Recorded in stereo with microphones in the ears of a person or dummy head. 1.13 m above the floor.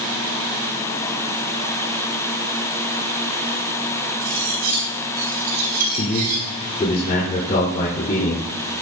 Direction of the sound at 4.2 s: 55° right (ahead or behind).